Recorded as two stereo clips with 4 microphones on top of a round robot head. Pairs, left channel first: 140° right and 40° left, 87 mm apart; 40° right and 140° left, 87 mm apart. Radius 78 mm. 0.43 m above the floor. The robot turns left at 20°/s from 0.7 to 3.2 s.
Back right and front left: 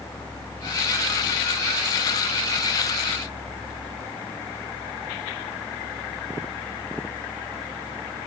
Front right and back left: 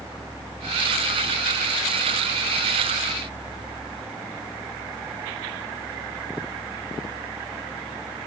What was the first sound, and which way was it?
Only background noise.